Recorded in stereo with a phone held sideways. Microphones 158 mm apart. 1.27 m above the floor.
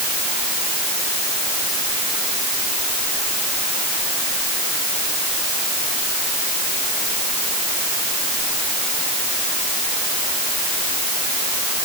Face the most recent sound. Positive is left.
No sound to turn to.